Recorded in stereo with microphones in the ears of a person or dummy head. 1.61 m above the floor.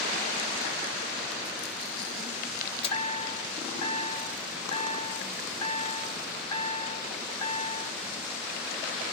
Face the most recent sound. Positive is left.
turn(degrees=30)  # may be behind; listen again after turning